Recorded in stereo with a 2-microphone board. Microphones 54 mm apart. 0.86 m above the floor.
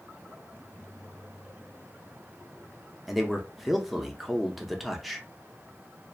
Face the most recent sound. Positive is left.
turn(degrees=0)  # may be behind; listen again after turning